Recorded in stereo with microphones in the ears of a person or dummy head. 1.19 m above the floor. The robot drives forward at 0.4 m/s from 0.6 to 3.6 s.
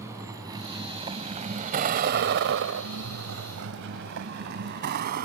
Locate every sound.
0.0 s a vehicle: 15° right (ahead or behind); by 5.2 s 55° right (ahead or behind)